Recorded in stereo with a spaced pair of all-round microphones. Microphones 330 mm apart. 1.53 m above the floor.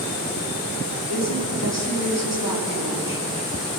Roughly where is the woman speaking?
Right.